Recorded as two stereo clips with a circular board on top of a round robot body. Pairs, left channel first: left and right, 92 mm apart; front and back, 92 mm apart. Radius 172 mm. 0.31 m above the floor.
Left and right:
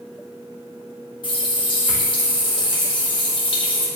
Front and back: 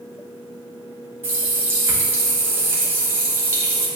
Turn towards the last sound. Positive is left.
turn(degrees=115)